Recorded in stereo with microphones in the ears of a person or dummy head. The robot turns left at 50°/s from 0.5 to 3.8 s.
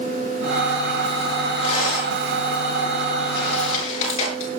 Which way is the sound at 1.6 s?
35° left (ahead or behind).